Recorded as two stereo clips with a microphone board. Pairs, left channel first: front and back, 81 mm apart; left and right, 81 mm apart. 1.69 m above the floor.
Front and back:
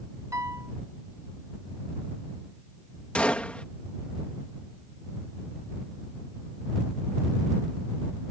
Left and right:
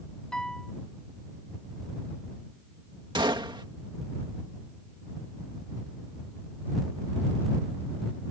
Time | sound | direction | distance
0.3 | a piano | 165° left | ?
3.1 | a gunshot | 75° right | ?